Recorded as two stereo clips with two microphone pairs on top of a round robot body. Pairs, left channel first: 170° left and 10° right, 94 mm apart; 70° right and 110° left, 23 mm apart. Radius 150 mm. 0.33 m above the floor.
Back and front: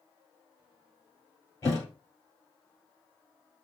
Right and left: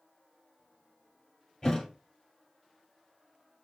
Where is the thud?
130° right, 1.8 m.